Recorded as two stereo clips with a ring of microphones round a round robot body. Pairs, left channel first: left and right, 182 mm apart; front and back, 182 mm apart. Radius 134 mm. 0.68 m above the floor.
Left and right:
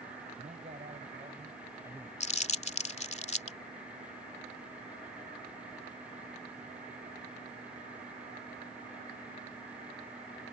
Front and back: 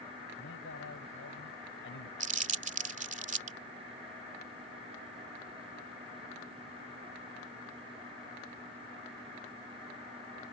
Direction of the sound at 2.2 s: 140° left.